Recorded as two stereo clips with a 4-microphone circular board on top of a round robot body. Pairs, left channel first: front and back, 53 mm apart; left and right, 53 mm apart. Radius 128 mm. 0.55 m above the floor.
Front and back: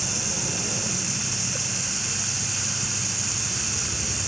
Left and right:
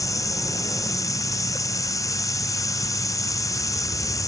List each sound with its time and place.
0.0 s running water: 90° left